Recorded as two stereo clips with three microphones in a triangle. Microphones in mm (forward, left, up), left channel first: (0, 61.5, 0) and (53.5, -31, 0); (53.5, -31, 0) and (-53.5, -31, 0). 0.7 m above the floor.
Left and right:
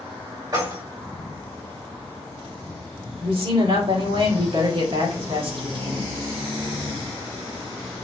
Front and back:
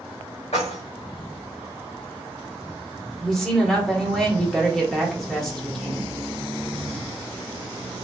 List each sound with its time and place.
0.5 s keys jangling: 5° right, 2.5 m
3.2 s a woman speaking: 85° right, 1.5 m